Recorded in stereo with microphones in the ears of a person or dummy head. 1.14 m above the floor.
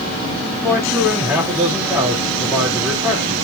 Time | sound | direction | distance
0.6 | a man speaking | 15° right (ahead or behind) | 3 m